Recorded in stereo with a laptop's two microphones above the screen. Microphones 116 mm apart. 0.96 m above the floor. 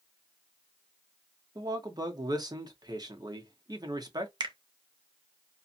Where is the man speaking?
35° right (ahead or behind), 1.0 m.